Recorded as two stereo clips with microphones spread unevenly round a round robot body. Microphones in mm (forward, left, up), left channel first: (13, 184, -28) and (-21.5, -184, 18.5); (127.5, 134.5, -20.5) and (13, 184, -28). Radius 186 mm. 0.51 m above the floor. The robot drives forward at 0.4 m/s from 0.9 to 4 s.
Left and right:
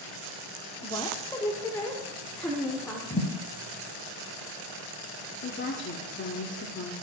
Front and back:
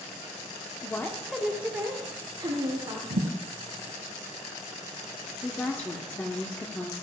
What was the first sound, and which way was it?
A woman speaking, 35° left.